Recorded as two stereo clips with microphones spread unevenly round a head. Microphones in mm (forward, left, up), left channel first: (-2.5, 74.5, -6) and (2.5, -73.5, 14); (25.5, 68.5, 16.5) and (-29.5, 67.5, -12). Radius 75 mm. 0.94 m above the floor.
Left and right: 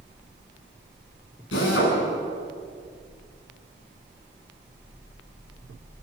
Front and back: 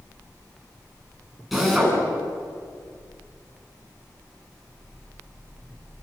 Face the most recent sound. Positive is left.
turn(degrees=90)